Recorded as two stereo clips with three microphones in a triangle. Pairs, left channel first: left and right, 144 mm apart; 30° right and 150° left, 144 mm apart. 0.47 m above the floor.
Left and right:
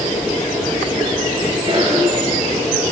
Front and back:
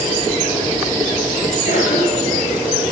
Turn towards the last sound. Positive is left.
turn(degrees=-35)